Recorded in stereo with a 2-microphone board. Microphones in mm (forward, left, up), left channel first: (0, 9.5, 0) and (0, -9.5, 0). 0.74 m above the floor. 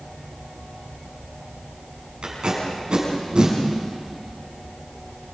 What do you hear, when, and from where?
2.2 s tape being pulled: 60° right (ahead or behind), 6.5 m